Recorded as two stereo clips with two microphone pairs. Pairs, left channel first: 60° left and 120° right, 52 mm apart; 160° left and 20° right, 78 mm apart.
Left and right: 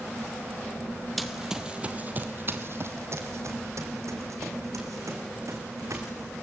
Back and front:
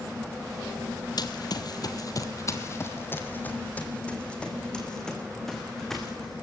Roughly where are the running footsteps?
Behind left.